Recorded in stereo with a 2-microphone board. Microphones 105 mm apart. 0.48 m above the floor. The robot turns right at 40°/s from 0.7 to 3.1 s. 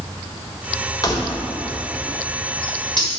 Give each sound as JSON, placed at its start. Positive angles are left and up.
{"t": 1.0, "sound": "keys jangling", "side_deg": 40, "distance_m": 1.2}